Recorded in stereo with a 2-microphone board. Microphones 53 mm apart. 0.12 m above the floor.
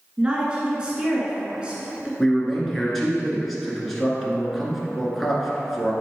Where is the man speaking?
5° left (ahead or behind), 1.8 m.